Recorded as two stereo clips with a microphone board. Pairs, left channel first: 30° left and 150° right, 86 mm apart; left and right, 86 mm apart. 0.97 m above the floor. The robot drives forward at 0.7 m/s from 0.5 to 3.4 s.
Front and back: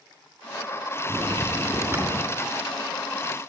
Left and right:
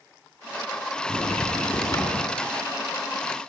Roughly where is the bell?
Behind left.